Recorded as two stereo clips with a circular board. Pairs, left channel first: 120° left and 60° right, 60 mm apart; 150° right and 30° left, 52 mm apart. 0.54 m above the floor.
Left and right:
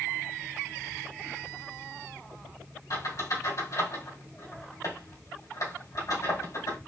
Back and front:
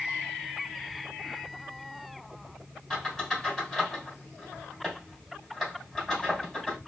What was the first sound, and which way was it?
A squeak, 125° left.